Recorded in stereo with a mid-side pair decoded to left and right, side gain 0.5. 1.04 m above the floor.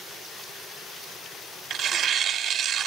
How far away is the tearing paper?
About 1.4 m.